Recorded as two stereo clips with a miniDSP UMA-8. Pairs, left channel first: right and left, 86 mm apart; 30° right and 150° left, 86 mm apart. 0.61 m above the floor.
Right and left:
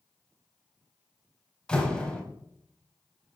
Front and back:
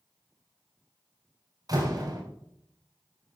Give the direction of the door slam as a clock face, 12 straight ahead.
6 o'clock.